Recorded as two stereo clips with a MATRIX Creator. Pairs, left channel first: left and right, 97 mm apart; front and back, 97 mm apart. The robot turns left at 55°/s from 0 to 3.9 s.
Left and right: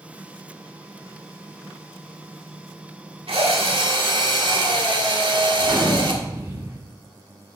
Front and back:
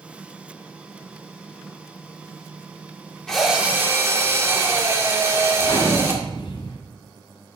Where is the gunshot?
25° right, 2 m.